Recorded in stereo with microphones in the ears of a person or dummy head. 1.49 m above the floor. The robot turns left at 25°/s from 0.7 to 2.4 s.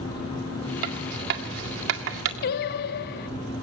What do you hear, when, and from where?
0.8 s writing: 50° right (ahead or behind), 2.0 m; by 2.3 s 70° right (ahead or behind), 2.0 m
2.4 s singing: 50° left (ahead or behind), 0.9 m